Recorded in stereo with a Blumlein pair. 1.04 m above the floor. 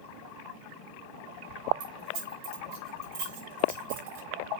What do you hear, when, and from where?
1.8 s keys jangling: 40° right, 4.5 m; by 4.3 s 50° right, 5.5 m